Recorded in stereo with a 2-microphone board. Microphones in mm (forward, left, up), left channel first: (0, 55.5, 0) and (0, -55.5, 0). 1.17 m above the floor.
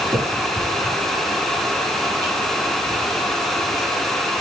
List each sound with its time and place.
0.1 s a finger snap: 25° right (ahead or behind), 10 m